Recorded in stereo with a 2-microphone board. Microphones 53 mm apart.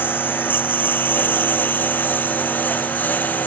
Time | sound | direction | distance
0.0 | a lawn mower | 35° left (ahead or behind) | ?